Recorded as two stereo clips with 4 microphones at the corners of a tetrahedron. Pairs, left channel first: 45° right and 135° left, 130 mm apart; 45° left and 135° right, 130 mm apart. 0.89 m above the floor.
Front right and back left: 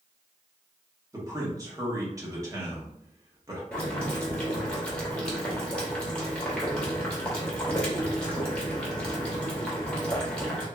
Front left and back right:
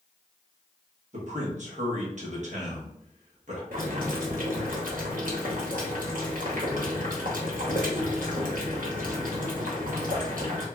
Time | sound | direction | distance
1.1 | a man speaking | 160° right | 1.1 m
3.7 | boiling | 130° right | 0.9 m